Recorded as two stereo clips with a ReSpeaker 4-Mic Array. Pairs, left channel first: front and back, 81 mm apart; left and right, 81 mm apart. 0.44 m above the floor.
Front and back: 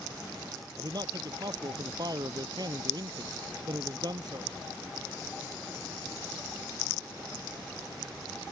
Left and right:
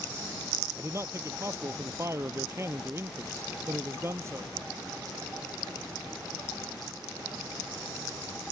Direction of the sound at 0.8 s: 145° right.